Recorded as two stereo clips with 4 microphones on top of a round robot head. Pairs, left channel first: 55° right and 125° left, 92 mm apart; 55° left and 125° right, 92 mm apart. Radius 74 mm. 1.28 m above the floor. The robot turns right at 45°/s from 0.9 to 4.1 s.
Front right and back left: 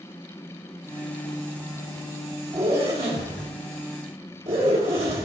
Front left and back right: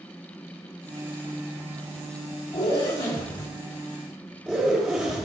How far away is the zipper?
About 2.5 m.